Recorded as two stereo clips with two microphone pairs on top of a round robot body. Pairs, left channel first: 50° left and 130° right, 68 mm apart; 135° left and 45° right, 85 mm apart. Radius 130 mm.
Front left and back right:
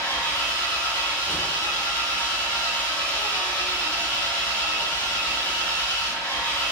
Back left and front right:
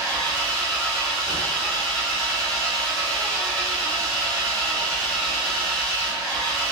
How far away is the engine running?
About 2 m.